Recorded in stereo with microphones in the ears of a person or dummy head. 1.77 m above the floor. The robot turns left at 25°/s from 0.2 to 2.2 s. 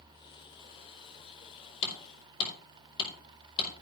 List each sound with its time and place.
1.8 s hammering: 40° left (ahead or behind), 4.5 m; by 3.7 s 30° left (ahead or behind), 4.5 m